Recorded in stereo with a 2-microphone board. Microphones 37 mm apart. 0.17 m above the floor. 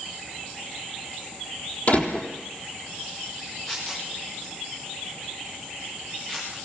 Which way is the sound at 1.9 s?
45° left (ahead or behind).